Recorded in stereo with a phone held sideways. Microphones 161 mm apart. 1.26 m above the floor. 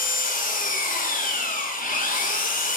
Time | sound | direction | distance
0.0 | an engine running | 60° left (ahead or behind) | 1.3 m